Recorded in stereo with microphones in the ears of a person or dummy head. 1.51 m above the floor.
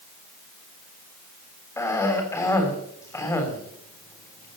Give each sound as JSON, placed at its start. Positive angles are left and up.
{"t": 1.8, "sound": "a cough", "side_deg": 15, "distance_m": 3.5}